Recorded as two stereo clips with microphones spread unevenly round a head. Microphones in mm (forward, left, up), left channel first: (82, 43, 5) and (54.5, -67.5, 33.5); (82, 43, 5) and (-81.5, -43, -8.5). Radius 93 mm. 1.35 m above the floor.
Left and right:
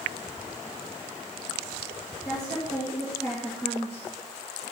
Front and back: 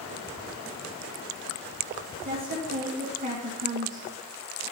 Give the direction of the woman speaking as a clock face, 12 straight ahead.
7 o'clock.